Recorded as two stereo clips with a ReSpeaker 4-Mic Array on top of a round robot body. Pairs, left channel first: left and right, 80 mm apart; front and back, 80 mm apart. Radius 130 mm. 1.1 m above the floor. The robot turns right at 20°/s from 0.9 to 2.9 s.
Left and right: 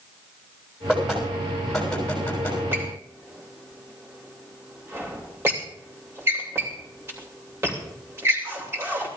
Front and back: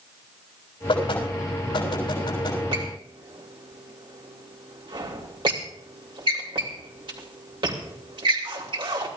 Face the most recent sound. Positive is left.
turn(degrees=-150)